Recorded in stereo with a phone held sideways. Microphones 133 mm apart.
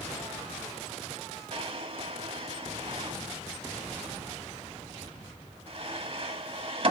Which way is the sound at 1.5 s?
45° right (ahead or behind).